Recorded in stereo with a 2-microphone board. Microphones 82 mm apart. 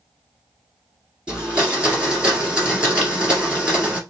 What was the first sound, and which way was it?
A blender, 10° right (ahead or behind).